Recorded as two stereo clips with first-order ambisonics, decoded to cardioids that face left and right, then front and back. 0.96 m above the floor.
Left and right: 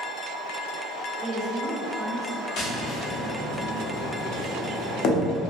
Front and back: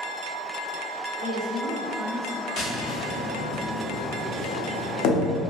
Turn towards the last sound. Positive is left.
turn(degrees=45)